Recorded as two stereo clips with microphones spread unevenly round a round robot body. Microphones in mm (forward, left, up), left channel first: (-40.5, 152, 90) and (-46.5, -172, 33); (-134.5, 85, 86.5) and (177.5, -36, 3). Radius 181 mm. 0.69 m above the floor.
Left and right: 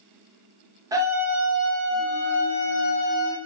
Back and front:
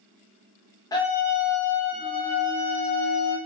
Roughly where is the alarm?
I don't hear an alarm.